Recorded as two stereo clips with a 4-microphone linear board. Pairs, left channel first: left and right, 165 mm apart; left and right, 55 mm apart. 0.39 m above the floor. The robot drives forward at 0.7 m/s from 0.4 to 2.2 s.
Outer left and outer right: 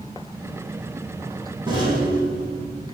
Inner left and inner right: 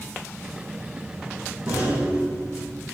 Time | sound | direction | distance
1.7 | a rattle | 25° right (ahead or behind) | 4.5 m